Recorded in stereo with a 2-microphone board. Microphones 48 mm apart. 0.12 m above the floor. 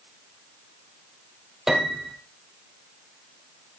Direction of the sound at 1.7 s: 10° right (ahead or behind).